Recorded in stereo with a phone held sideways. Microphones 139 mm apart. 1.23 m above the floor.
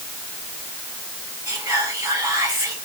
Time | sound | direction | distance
1.5 | whispering | 15° right (ahead or behind) | 3 m